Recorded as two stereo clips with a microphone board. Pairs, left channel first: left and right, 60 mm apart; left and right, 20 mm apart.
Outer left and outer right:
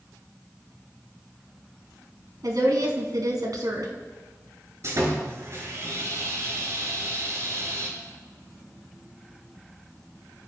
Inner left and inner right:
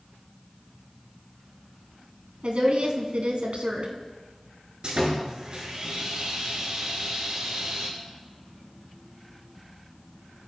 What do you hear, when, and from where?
2.4 s a woman speaking: 75° right (ahead or behind), 3 m
4.8 s sawing: 55° right (ahead or behind), 6 m